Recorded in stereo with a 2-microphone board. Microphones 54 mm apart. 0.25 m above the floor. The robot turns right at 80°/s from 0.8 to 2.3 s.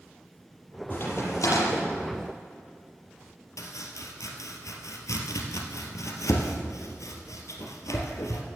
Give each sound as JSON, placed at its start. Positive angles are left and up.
{"t": 0.9, "sound": "a crack", "side_deg": 35, "distance_m": 6.5}
{"t": 3.6, "sound": "chopping", "side_deg": 80, "distance_m": 2.0}